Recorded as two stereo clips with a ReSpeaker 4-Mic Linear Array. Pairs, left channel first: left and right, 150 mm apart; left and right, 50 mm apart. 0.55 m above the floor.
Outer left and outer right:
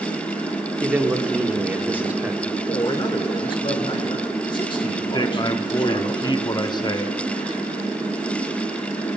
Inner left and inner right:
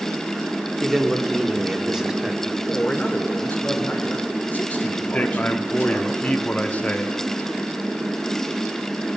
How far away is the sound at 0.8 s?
About 1.1 m.